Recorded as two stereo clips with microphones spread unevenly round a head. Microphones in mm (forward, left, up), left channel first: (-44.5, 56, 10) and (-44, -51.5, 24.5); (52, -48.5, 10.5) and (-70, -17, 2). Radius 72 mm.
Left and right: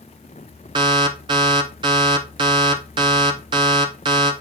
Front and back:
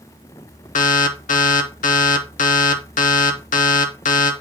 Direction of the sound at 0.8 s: 30° right.